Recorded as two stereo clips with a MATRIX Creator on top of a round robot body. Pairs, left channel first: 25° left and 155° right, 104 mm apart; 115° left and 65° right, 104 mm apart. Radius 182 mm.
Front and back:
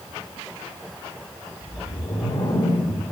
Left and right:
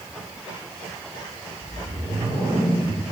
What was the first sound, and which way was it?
A whoosh, 15° right.